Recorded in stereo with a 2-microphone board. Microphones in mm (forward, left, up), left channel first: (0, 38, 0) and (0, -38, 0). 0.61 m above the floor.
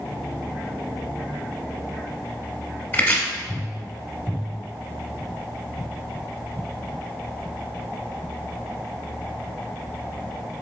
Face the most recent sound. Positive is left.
turn(degrees=25)  # may be behind; listen again after turning